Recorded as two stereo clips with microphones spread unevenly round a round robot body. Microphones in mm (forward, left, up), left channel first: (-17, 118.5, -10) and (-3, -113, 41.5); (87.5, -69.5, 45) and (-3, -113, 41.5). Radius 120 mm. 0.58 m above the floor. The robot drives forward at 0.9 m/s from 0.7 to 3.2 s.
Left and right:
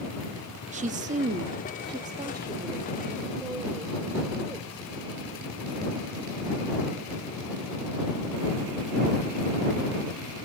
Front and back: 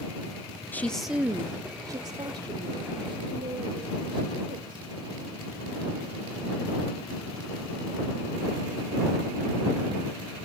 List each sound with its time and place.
0.7 s a woman speaking: 30° right, 0.8 m; by 4.9 s 175° right, 2 m